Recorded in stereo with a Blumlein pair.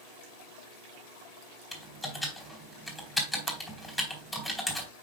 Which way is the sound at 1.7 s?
5° left.